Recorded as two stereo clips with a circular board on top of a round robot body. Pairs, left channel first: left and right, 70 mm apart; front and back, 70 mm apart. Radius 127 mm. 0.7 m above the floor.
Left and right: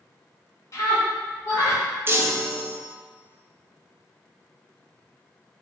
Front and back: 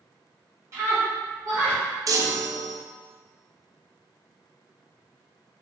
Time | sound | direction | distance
0.7 | a scream | 135° left | 1.9 m
2.1 | a chime | 145° right | 0.5 m